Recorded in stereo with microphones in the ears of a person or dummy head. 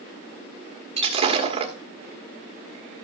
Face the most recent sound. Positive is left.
turn(degrees=-35)  # may be behind; listen again after turning